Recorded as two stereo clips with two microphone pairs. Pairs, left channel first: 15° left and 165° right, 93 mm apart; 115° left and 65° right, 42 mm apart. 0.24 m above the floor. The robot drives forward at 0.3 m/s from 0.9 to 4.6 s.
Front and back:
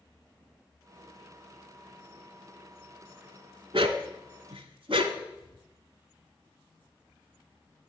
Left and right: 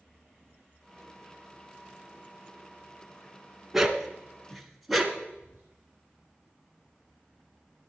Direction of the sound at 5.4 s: 125° right.